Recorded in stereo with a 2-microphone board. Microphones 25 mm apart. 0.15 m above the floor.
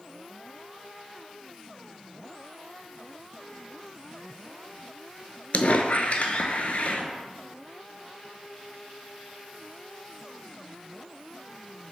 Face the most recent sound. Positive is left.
turn(degrees=65)  # may be behind; listen again after turning